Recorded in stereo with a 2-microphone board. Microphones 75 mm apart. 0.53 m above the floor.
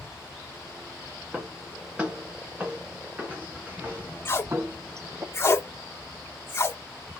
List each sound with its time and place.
1.3 s footsteps: 15° right (ahead or behind), 3.5 m; by 5.2 s 45° right (ahead or behind), 1.3 m
4.2 s tape being pulled: 35° left (ahead or behind), 1.2 m